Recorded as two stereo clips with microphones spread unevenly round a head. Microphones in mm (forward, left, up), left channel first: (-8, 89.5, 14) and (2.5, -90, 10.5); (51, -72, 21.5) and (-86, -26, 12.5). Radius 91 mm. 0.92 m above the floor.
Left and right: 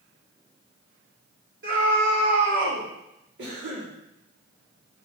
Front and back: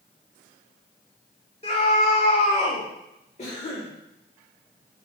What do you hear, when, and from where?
1.6 s a scream: 65° right, 4.5 m; by 2.9 s 60° right, 5 m
3.4 s a cough: 65° right, 2 m